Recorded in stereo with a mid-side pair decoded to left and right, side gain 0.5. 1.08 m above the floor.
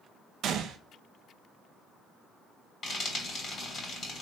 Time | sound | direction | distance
0.4 | a gunshot | 65° right | 0.6 m
2.8 | frying | 45° left | 2.5 m